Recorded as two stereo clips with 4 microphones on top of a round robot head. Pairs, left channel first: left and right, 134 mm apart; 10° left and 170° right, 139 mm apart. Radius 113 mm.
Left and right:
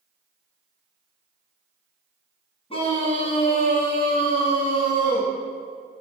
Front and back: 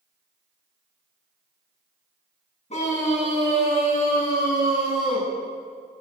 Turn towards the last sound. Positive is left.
turn(degrees=40)